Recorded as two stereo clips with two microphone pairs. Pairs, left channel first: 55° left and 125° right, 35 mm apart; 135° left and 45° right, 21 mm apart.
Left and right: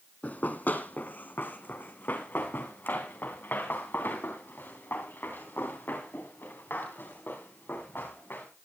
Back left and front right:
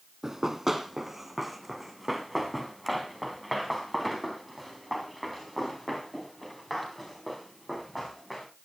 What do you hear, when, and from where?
0.2 s running footsteps: 30° left, 1.4 m; by 8.5 s 60° left, 7 m